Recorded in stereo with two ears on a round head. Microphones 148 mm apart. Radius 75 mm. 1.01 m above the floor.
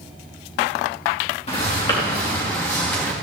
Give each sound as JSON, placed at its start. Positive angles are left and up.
{"t": 1.5, "sound": "footsteps", "side_deg": 35, "distance_m": 4.0}